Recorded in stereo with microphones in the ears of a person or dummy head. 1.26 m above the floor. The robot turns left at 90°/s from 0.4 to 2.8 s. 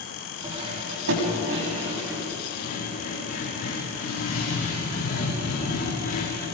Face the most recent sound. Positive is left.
turn(degrees=50)  # may be behind; listen again after turning